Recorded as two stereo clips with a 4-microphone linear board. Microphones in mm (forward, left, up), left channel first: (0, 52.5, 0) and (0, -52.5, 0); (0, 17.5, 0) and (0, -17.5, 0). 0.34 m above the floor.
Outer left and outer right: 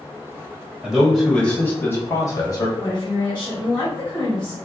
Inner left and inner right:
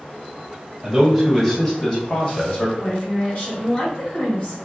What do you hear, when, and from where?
0.8 s a man speaking: 5° right (ahead or behind), 1.6 m; by 2.7 s 40° left (ahead or behind), 1.5 m
2.8 s a woman speaking: 40° left (ahead or behind), 1.8 m